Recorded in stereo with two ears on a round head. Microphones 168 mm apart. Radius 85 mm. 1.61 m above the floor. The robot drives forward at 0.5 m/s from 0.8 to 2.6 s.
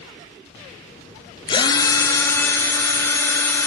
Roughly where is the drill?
Left.